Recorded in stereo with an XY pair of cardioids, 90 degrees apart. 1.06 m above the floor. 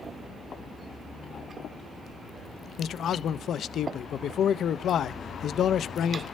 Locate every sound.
2.8 s a man speaking: 65° left, 0.6 m